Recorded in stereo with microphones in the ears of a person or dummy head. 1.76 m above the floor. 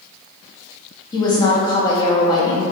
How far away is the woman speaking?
About 0.5 m.